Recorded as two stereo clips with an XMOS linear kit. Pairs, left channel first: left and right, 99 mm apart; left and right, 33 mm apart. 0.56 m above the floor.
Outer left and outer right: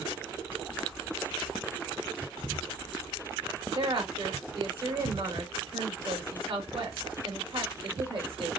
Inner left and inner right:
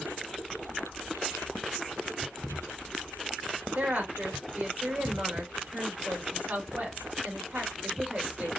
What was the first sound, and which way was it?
A woman speaking, 65° right (ahead or behind).